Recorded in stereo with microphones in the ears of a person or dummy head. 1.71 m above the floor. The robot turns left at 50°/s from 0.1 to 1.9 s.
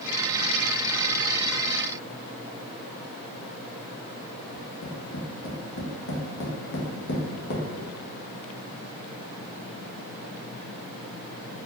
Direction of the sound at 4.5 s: 55° left (ahead or behind).